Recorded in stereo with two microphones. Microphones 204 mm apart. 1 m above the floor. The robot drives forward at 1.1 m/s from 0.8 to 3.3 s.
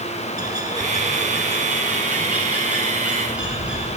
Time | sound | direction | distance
0.4 | a bird | 20° right (ahead or behind) | 1.3 m